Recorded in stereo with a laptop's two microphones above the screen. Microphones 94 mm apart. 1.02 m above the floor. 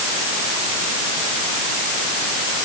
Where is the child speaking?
I don't hear a child speaking.